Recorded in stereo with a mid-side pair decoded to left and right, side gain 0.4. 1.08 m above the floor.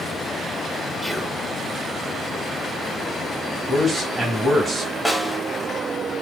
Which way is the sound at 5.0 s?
5° right.